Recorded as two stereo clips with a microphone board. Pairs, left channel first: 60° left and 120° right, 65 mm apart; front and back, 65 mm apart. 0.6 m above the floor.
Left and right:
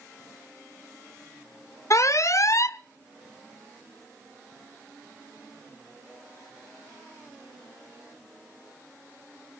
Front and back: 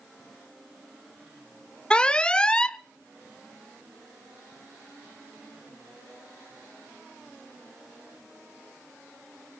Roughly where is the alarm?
Left.